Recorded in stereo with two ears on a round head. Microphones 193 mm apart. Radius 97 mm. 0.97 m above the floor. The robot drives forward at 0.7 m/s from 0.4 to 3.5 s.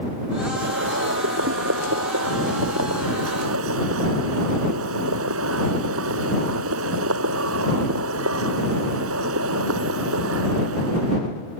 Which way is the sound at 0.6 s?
60° right (ahead or behind).